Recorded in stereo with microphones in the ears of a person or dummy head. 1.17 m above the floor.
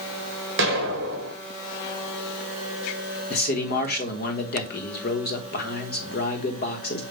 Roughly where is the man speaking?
Left.